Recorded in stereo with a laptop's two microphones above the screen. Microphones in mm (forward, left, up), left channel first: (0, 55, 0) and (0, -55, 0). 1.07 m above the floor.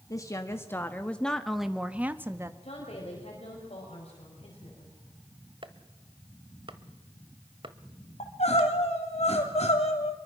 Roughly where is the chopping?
Right.